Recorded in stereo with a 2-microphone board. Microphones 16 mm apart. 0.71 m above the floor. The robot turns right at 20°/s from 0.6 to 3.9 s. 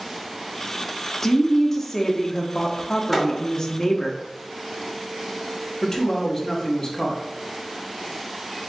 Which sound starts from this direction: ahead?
A woman speaking, at 1.2 s.